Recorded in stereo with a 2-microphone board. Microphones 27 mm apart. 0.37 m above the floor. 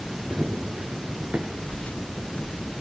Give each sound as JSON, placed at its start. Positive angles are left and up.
{"t": 0.3, "sound": "running footsteps", "side_deg": -65, "distance_m": 1.3}
{"t": 1.7, "sound": "footsteps", "side_deg": 75, "distance_m": 7.0}